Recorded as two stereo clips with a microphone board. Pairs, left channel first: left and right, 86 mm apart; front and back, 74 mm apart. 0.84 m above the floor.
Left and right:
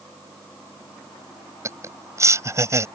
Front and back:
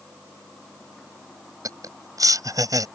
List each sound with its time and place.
1.6 s laughter: 145° right